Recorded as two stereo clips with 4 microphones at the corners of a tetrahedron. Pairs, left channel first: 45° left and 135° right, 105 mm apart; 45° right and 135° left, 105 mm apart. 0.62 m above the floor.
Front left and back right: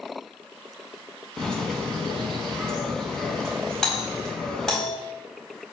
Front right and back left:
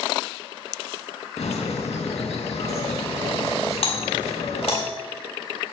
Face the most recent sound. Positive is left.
turn(degrees=-40)